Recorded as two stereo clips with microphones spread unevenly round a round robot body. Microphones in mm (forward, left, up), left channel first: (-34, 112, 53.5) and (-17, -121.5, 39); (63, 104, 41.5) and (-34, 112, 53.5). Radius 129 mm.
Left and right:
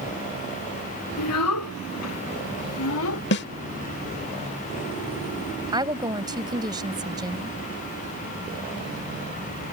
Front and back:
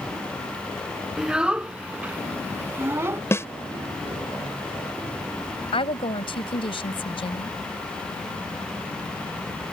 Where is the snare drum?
55° left.